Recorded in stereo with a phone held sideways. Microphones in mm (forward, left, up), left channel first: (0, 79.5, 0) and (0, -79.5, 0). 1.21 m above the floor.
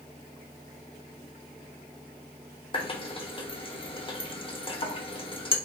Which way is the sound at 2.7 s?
35° left (ahead or behind).